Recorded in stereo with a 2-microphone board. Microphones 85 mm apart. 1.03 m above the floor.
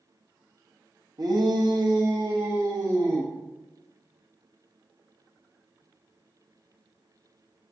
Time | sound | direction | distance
1.2 | a shout | 55° right (ahead or behind) | 1.3 m